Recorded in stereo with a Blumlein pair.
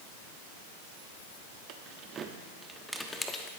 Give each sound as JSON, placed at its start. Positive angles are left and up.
{"t": 1.7, "sound": "keys jangling", "azimuth_deg": -40, "distance_m": 1.2}